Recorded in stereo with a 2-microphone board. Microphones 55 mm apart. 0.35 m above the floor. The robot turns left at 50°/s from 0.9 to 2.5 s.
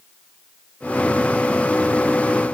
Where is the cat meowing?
No cat meowing in this recording.